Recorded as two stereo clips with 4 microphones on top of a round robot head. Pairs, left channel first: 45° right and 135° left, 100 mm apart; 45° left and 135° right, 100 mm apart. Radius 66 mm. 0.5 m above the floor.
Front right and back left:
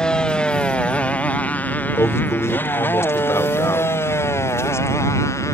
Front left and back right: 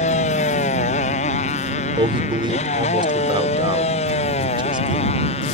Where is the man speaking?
105° right.